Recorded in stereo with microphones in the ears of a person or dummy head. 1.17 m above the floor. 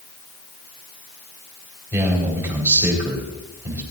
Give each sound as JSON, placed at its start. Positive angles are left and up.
{"t": 1.9, "sound": "a man speaking", "side_deg": -15, "distance_m": 4.0}